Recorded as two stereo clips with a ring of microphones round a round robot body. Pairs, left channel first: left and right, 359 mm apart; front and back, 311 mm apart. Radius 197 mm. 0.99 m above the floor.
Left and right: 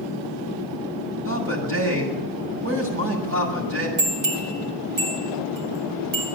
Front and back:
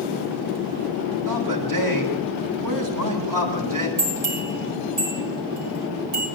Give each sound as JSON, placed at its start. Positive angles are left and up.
{"t": 1.2, "sound": "a man speaking", "azimuth_deg": -145, "distance_m": 7.0}
{"t": 4.0, "sound": "a bell", "azimuth_deg": -125, "distance_m": 6.0}